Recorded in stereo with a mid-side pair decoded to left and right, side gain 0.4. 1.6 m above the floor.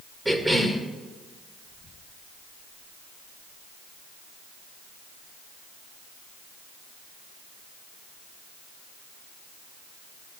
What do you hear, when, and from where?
0.2 s a cough: 10° right, 1.8 m